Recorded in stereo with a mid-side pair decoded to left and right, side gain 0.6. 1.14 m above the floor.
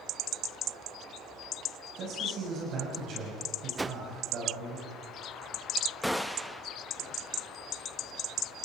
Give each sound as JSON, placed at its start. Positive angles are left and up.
{"t": 2.0, "sound": "a man speaking", "azimuth_deg": -55, "distance_m": 6.0}
{"t": 3.8, "sound": "a whoosh", "azimuth_deg": -15, "distance_m": 0.5}
{"t": 6.0, "sound": "a gunshot", "azimuth_deg": 0, "distance_m": 0.8}